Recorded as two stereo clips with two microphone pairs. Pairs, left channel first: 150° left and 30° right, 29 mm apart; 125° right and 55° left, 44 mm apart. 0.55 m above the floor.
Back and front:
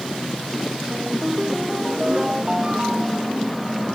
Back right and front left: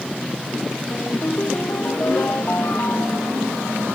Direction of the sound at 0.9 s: 95° right.